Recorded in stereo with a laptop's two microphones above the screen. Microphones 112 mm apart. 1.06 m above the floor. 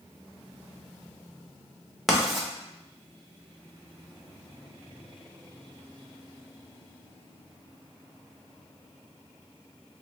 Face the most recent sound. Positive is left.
turn(degrees=0)  # may be behind; listen again after turning